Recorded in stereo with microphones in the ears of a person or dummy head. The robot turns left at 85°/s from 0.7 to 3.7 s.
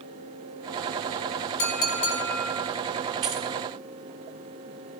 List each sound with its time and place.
1.6 s a clink: 75° left, 3 m; by 2.7 s 20° right, 3 m
3.2 s keys jangling: 20° right (ahead or behind), 0.5 m